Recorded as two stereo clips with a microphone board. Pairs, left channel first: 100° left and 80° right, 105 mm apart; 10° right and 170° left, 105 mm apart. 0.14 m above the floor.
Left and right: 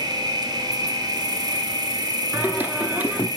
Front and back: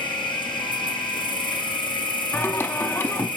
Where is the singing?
40° right, 0.9 m.